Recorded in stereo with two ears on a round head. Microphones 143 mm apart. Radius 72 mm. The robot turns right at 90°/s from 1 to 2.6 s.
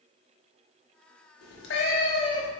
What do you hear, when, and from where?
1.4 s a cat meowing: 70° left, 0.9 m; by 2.5 s 165° left, 0.9 m